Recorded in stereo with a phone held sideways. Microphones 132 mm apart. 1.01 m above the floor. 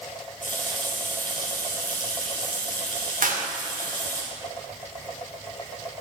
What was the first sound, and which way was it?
A running tap, 75° left (ahead or behind).